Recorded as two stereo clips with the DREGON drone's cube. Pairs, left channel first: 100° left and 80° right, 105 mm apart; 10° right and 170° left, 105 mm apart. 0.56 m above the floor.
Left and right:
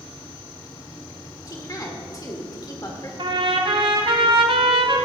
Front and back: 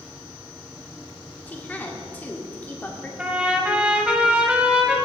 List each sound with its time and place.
1.5 s a woman speaking: 60° left, 1.6 m
3.2 s a trumpet: 110° right, 1.4 m